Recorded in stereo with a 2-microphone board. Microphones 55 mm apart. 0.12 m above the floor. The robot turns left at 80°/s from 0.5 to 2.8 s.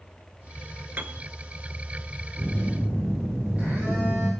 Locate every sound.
1.0 s a piano: 35° right (ahead or behind), 0.8 m; by 1.3 s 45° right (ahead or behind), 0.8 m
2.4 s a phone buzzing: 10° left, 6.5 m; by 4.3 s 25° right, 6.5 m